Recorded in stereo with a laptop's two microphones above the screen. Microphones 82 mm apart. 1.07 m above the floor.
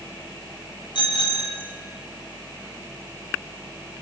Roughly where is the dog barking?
I don't hear a dog barking.